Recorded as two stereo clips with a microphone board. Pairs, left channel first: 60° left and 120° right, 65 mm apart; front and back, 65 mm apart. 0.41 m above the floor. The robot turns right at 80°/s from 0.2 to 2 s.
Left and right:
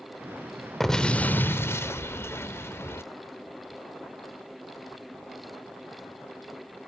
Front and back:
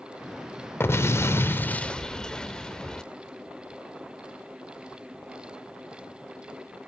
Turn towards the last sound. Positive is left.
turn(degrees=70)